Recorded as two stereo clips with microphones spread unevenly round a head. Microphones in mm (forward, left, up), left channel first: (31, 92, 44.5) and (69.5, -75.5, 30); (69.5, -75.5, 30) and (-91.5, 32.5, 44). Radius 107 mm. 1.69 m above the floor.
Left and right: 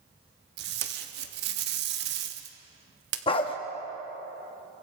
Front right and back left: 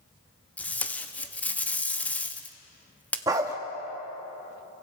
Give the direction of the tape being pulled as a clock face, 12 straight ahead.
4 o'clock.